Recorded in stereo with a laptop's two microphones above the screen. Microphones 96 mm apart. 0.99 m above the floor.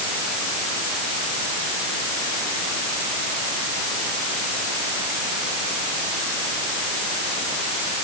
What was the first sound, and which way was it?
Only background noise.